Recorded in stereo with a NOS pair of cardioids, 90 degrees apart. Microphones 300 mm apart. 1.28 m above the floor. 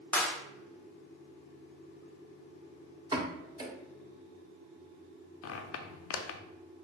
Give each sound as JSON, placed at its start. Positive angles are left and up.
{"t": 0.1, "sound": "a clap", "azimuth_deg": 5, "distance_m": 0.9}
{"t": 3.1, "sound": "a pop", "azimuth_deg": -15, "distance_m": 1.2}
{"t": 5.4, "sound": "a squeak", "azimuth_deg": 55, "distance_m": 0.6}